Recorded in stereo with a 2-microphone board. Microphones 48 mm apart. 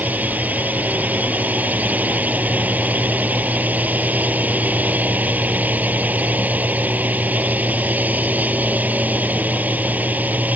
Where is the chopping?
I don't hear chopping.